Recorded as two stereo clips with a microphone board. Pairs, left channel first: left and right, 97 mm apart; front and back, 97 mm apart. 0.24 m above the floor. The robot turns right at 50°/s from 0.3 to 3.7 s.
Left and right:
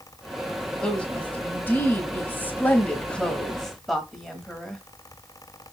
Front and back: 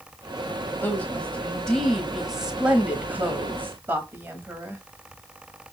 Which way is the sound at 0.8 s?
25° left.